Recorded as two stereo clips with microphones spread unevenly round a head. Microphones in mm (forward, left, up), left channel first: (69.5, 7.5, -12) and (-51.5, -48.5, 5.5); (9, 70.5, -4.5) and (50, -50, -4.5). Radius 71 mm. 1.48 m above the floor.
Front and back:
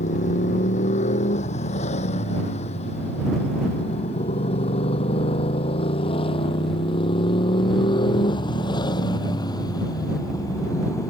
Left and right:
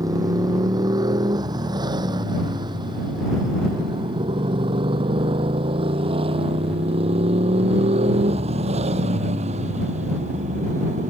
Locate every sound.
0.0 s a motorcycle: 10° right; by 11.1 s 40° right